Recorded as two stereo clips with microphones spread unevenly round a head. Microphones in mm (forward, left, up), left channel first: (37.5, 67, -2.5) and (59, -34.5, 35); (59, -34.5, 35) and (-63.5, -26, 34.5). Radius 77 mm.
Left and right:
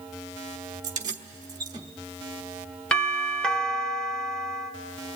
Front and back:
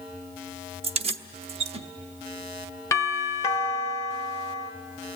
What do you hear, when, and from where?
0.8 s keys jangling: 145° right, 0.9 m
2.9 s a doorbell: 55° left, 1.4 m